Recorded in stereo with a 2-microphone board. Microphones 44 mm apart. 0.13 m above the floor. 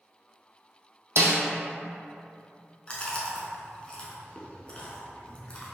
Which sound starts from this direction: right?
A snare drum, at 1.2 s.